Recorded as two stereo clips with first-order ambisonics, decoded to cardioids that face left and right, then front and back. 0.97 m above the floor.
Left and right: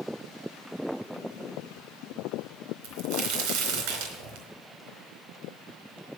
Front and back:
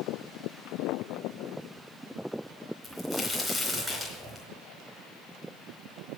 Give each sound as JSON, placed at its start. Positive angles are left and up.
{"t": 2.8, "sound": "a crack", "azimuth_deg": -95, "distance_m": 3.5}